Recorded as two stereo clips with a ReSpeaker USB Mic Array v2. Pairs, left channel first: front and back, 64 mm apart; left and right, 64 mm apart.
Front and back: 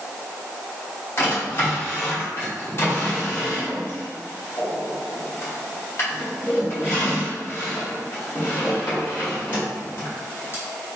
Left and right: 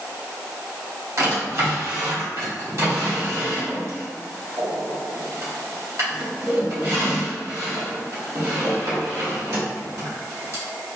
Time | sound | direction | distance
1.2 | a drawer | 55° right | 2.0 m